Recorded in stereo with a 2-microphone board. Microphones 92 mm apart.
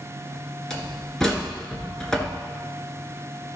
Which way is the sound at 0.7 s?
5° left (ahead or behind).